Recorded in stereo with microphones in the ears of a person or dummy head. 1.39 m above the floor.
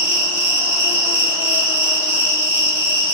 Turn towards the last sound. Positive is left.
turn(degrees=-10)  # may be behind; listen again after turning